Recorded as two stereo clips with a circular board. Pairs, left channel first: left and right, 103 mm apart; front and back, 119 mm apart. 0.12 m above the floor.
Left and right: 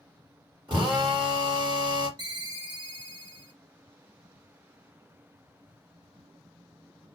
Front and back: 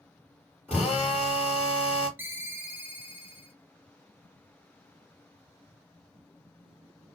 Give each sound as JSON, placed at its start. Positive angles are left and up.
{"t": 0.7, "sound": "a drill", "azimuth_deg": -80, "distance_m": 2.5}
{"t": 2.2, "sound": "a ringtone", "azimuth_deg": -115, "distance_m": 1.3}